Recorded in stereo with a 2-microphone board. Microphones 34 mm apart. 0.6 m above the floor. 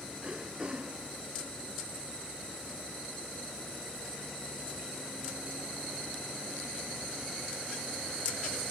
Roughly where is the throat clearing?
Right.